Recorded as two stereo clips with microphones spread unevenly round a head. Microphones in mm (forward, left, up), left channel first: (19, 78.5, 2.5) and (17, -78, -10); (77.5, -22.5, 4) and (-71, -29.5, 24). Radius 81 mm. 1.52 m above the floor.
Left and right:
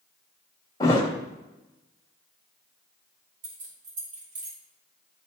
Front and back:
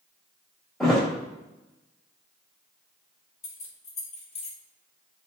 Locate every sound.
0.8 s a thud: 105° left, 1.4 m
3.4 s keys jangling: 45° right, 2.5 m